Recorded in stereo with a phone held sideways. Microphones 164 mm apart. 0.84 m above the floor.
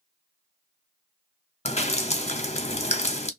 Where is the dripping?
40° left (ahead or behind), 0.7 m.